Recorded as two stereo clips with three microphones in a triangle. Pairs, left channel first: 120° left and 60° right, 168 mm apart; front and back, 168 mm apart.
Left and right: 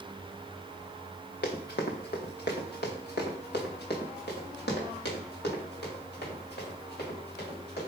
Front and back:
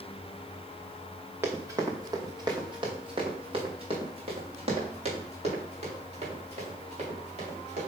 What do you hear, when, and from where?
1.4 s running footsteps: 105° left, 1.6 m; by 7.9 s 135° left, 5.5 m